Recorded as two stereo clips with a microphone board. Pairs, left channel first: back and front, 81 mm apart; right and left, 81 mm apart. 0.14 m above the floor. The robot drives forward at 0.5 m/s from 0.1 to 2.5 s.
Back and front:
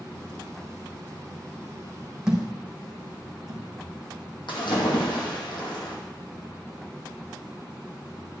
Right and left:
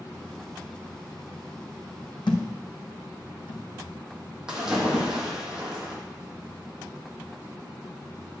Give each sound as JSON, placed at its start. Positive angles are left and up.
{"t": 2.3, "sound": "a thud", "azimuth_deg": -80, "distance_m": 1.7}
{"t": 4.5, "sound": "a splash", "azimuth_deg": 170, "distance_m": 2.0}